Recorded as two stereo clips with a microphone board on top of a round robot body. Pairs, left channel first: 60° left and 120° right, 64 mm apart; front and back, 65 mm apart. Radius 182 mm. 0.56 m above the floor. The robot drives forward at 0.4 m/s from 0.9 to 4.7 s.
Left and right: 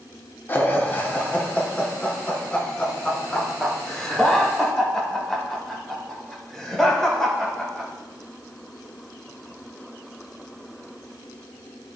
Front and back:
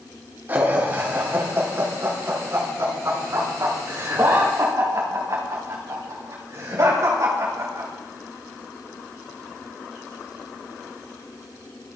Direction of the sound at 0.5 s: 120° left.